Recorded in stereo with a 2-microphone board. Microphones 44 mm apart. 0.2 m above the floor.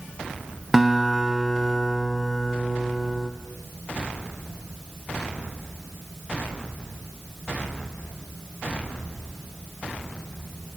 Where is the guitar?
10° right (ahead or behind), 0.6 m.